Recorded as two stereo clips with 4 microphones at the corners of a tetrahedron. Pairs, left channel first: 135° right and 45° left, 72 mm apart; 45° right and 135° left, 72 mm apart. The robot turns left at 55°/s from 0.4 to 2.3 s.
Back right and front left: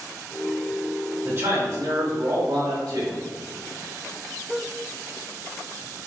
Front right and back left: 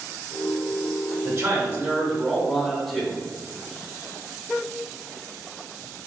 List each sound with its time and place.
1.2 s a man speaking: 90° left, 1.1 m; by 3.2 s 30° left, 1.1 m